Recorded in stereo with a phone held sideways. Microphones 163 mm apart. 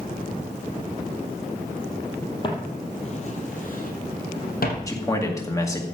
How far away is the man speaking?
About 2 m.